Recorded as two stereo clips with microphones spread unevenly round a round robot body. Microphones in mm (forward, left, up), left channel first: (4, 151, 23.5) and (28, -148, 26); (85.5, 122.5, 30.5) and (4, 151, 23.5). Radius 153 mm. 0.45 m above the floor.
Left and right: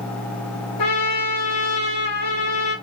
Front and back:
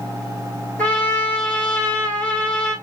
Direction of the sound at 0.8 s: 55° left.